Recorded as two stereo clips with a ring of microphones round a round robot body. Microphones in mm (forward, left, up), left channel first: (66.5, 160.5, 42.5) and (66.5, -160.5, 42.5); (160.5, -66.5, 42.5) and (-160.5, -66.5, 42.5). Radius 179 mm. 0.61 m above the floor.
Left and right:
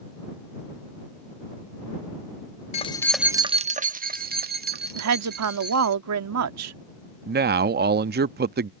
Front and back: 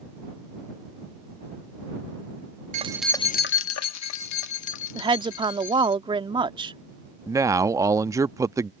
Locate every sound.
2.7 s keys jangling: 140° left; by 6.0 s 30° right
5.0 s a woman speaking: 110° right
7.3 s a man speaking: 110° right